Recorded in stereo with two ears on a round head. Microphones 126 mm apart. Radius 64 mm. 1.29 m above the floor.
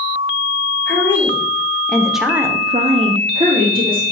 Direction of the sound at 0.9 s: 15° left (ahead or behind).